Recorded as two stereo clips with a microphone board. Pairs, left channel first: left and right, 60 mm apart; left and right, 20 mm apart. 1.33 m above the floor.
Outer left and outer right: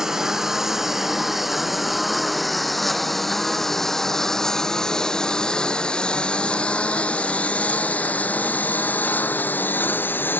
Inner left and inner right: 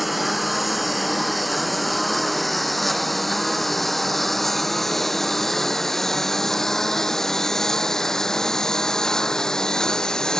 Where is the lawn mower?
10° right (ahead or behind); by 10.4 s 35° left (ahead or behind).